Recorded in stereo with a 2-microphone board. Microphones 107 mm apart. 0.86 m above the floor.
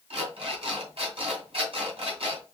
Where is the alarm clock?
60° right (ahead or behind), 2 m.